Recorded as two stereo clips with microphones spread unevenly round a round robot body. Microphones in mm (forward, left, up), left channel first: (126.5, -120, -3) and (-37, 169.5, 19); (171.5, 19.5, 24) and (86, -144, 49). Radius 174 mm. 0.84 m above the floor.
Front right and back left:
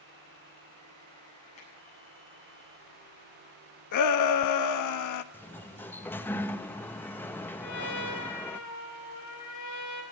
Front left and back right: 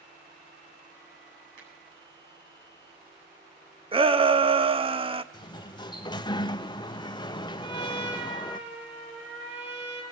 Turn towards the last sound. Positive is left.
turn(degrees=-110)